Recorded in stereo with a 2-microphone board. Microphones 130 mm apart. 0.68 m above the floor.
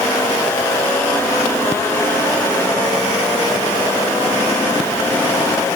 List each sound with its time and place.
Only background noise.